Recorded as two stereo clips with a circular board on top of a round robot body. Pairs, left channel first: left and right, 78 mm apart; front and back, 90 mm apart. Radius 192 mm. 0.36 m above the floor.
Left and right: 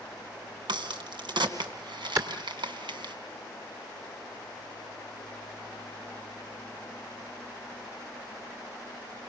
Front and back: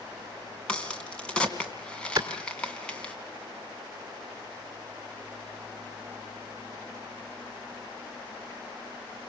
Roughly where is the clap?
Behind right.